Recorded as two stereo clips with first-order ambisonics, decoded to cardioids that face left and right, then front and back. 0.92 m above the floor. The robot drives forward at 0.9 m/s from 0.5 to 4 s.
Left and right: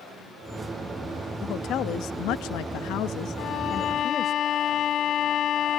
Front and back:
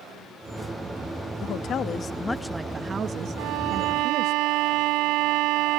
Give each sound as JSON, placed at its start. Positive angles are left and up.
{"t": 1.4, "sound": "a woman speaking", "azimuth_deg": 40}
{"t": 3.4, "sound": "a violin", "azimuth_deg": 145}